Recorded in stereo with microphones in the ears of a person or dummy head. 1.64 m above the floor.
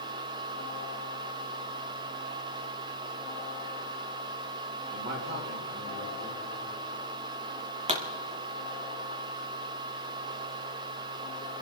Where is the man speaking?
60° right (ahead or behind), 3.5 m.